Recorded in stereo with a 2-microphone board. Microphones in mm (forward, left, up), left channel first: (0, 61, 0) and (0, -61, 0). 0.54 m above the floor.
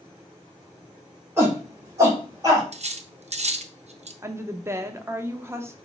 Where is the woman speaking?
20° right (ahead or behind), 0.6 m.